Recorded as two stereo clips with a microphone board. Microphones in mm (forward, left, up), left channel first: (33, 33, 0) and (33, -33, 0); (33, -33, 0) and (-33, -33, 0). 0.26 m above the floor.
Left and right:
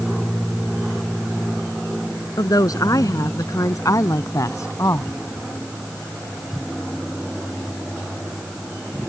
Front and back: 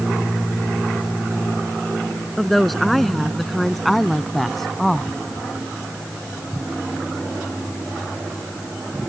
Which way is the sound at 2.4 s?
90° left.